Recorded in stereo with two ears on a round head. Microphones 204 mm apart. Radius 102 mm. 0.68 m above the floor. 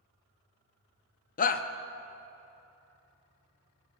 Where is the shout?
40° left (ahead or behind), 0.6 m.